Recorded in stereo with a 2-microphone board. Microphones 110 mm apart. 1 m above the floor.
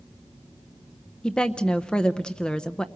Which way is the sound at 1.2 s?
10° left (ahead or behind).